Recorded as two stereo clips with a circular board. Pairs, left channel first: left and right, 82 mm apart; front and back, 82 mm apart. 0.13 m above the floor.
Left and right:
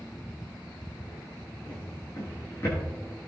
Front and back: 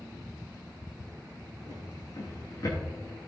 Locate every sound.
1.7 s a drawer: 35° left, 6 m